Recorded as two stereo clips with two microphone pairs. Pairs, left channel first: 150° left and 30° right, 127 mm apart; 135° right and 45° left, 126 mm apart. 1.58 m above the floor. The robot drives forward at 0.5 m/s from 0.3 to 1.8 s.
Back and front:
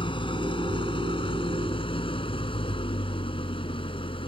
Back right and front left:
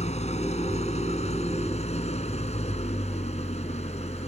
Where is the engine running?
165° right.